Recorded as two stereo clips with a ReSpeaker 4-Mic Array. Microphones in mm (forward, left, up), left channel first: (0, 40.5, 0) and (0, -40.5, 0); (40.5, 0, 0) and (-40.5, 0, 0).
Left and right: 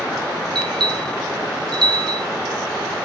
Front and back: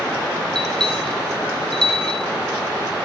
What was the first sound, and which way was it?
A bell, 80° right.